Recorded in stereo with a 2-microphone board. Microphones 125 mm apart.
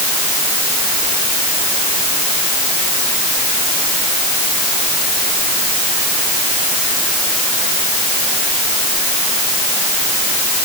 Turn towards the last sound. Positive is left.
No sound to turn to.